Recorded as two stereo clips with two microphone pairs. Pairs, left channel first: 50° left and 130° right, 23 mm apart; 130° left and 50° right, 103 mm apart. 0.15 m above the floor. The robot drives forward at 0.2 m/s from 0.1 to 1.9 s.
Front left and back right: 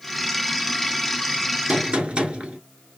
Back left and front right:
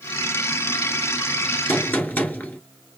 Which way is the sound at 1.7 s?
160° right.